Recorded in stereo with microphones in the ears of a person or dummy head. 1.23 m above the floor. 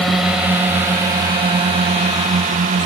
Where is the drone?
Centre (ahead or behind); by 2.9 s 35° right (ahead or behind).